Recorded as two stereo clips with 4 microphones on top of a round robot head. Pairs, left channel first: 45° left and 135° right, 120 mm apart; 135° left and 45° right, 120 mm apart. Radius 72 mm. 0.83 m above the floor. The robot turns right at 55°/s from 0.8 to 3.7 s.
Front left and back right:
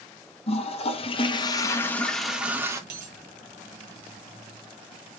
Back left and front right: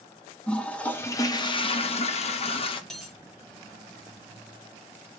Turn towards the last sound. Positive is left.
turn(degrees=-95)